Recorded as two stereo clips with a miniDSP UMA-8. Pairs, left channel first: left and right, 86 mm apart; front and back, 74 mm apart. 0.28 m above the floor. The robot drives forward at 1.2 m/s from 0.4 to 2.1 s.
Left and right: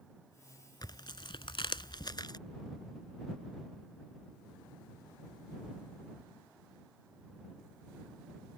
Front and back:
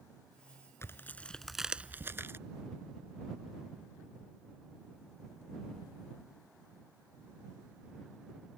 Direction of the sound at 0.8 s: 55° left.